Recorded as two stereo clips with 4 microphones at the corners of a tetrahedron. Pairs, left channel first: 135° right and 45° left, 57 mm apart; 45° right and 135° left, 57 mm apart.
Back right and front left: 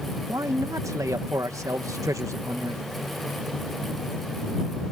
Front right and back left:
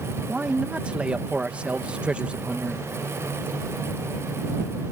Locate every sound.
0.3 s a man speaking: 65° left